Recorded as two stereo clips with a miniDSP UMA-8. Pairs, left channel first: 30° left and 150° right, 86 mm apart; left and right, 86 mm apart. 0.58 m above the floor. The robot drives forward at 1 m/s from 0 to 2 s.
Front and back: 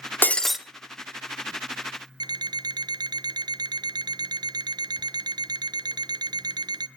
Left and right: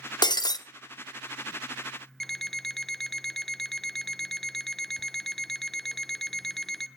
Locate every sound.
0.2 s breaking glass: 90° left, 0.7 m; by 0.6 s 125° left, 0.8 m
2.2 s an alarm clock: 175° left, 0.5 m